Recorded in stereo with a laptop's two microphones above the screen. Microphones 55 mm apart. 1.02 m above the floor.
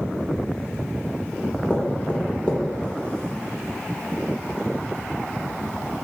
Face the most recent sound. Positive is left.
turn(degrees=25)  # may be behind; listen again after turning